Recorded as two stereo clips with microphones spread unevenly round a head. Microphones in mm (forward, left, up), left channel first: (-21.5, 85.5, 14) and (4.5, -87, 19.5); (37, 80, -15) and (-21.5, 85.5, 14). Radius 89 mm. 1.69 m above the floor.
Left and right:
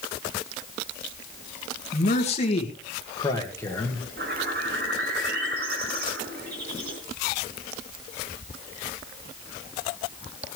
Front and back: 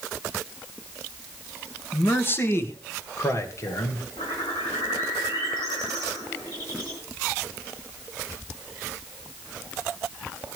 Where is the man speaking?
50° left, 2 m; by 4.0 s 20° left, 2.5 m.